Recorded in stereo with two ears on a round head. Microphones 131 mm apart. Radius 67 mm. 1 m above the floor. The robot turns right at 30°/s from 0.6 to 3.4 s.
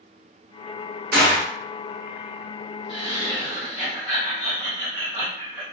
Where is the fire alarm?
No fire alarm in this recording.